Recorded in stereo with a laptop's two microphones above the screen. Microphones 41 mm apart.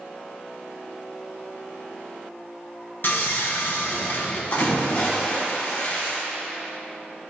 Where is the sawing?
55° left (ahead or behind), 0.8 m.